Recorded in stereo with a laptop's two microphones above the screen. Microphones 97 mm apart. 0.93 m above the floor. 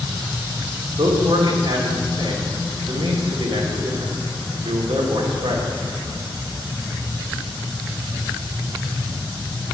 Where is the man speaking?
80° right, 2 m.